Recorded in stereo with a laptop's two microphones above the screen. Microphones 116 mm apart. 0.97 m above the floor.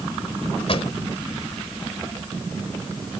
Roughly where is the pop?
Left.